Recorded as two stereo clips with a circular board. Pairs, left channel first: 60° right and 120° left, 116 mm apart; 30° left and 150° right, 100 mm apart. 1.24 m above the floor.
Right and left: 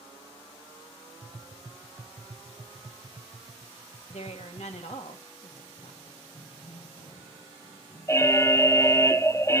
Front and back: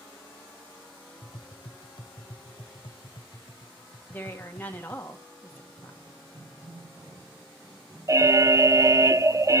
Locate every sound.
1.2 s tapping: 55° left, 0.6 m
4.1 s a woman speaking: 40° right, 2 m
5.5 s running footsteps: 95° right, 4 m
8.1 s an alarm: 115° right, 0.5 m